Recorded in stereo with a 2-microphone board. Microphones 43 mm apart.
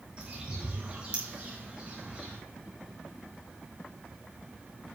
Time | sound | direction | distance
0.2 | a bird | 30° right (ahead or behind) | 5.5 m